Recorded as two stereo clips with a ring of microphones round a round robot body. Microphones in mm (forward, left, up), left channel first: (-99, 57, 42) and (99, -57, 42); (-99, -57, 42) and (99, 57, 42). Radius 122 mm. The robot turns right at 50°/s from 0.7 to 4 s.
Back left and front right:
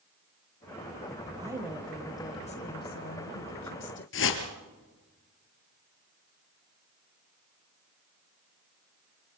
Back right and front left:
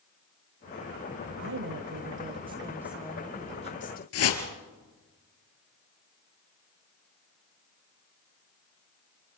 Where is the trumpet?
I don't hear a trumpet.